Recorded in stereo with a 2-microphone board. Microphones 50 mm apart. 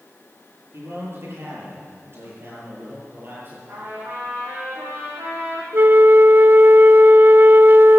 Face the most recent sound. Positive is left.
turn(degrees=-45)  # may be behind; listen again after turning